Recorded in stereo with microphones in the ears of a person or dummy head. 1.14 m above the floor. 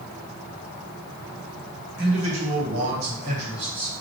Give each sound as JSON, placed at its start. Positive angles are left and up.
{"t": 2.0, "sound": "a man speaking", "side_deg": -60, "distance_m": 1.4}